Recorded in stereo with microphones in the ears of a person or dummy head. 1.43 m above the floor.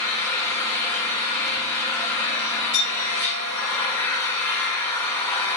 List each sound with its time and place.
0.0 s an engine running: 20° left (ahead or behind), 5 m
2.7 s a clink: 50° left (ahead or behind), 7.5 m